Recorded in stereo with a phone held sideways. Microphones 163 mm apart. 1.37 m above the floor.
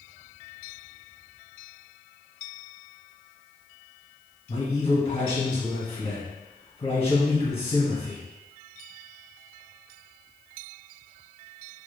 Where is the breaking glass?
No breaking glass in this recording.